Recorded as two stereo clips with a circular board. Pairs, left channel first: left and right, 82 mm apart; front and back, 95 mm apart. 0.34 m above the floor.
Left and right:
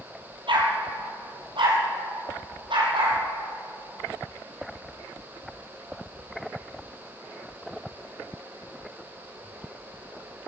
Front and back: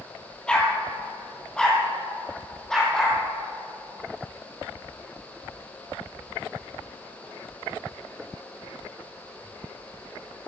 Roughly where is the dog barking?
Right.